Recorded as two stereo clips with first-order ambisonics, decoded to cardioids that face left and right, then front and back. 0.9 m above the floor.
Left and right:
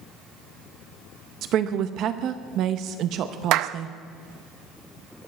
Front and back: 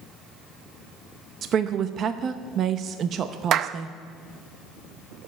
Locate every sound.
1.4 s a woman speaking: 130° right, 0.7 m
3.5 s a clap: 125° right, 0.5 m